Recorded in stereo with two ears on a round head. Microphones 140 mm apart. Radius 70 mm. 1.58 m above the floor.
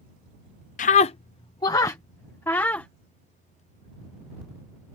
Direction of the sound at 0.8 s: 55° left (ahead or behind).